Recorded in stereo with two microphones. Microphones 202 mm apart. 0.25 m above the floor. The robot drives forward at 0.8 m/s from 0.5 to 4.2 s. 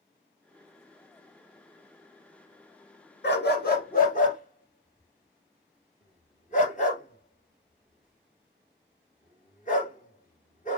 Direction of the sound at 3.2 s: 60° left (ahead or behind).